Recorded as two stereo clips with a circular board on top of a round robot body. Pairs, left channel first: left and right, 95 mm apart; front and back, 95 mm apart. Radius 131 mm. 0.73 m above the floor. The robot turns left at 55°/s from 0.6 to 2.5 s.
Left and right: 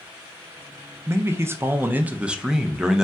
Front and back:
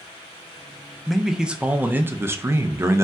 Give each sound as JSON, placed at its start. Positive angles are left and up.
{"t": 1.1, "sound": "a man speaking", "azimuth_deg": -85, "distance_m": 0.5}